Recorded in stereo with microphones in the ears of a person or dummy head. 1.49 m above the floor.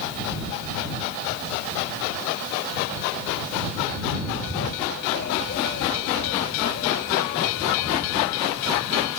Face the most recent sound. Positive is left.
turn(degrees=55)  # may be behind; listen again after turning